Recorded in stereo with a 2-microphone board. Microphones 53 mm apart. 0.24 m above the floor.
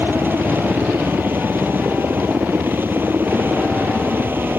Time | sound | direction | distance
0.0 | a helicopter | 40° right (ahead or behind) | ?